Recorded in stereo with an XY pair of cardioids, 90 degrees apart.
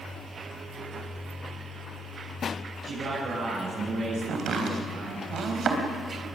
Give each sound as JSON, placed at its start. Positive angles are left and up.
{"t": 2.8, "sound": "a man speaking", "azimuth_deg": -60, "distance_m": 9.5}
{"t": 4.3, "sound": "chopping", "azimuth_deg": -65, "distance_m": 3.5}